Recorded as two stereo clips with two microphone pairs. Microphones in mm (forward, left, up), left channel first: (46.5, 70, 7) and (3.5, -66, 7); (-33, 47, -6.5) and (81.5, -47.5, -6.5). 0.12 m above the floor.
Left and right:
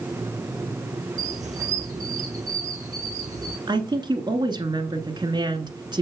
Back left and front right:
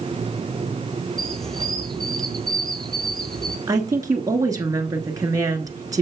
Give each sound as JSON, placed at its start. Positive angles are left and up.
{"t": 1.2, "sound": "a squeak", "azimuth_deg": -130, "distance_m": 1.0}
{"t": 3.7, "sound": "a woman speaking", "azimuth_deg": -80, "distance_m": 1.4}